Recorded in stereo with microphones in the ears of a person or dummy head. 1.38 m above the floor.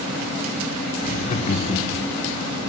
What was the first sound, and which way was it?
Laughter, 45° left (ahead or behind).